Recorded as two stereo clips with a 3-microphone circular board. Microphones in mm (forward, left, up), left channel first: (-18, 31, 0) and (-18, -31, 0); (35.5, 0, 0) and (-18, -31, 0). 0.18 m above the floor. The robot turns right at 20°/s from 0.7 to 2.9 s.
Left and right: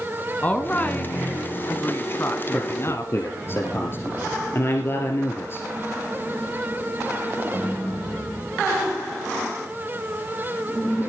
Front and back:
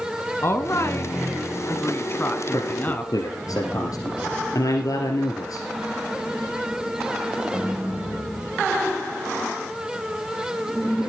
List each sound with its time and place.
0.4 s a woman speaking: 35° left, 1.5 m; by 3.1 s 80° left, 1.5 m
2.5 s a man speaking: 35° left, 3 m; by 5.7 s 45° left, 3 m